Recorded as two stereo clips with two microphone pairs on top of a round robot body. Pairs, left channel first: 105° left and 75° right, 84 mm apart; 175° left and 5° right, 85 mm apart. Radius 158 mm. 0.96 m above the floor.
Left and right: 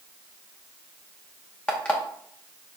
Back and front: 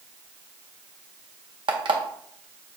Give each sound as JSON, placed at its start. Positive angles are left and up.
{"t": 1.7, "sound": "an alarm clock", "azimuth_deg": 25, "distance_m": 0.9}